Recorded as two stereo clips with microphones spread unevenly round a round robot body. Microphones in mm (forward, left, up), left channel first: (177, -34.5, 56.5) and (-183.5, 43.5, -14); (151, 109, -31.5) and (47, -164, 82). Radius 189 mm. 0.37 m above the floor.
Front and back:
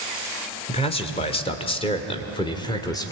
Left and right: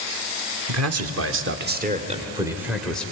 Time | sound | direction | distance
0.7 | a man speaking | 95° right | 1.6 m